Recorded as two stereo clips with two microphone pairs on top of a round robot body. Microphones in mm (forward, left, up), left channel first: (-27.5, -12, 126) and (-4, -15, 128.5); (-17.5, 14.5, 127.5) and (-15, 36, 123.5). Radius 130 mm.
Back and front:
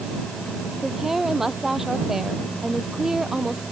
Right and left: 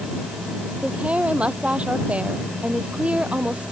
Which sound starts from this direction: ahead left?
A woman speaking, at 0.8 s.